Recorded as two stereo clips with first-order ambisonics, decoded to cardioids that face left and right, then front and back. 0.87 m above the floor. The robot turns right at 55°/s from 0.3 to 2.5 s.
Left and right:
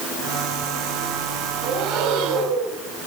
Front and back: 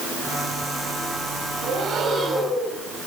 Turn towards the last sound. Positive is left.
turn(degrees=-90)